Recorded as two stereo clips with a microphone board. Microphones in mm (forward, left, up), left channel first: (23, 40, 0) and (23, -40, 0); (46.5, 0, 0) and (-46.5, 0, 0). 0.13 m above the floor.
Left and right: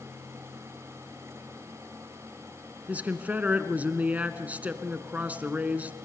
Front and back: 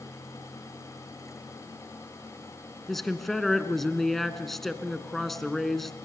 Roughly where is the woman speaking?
Right.